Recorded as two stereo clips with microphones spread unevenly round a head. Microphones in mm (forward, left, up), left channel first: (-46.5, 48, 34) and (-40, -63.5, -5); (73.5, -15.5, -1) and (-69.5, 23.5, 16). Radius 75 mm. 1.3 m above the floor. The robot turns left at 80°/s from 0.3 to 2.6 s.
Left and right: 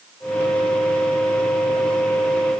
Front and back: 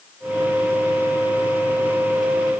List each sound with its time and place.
Only background noise.